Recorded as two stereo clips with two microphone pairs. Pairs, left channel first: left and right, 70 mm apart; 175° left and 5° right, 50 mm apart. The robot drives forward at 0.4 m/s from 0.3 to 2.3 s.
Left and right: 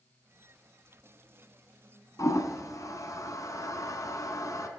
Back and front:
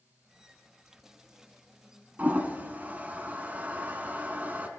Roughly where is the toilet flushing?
Ahead left.